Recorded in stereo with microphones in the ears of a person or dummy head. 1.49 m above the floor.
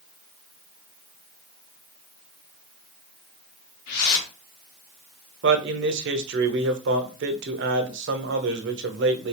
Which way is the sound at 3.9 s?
55° left (ahead or behind).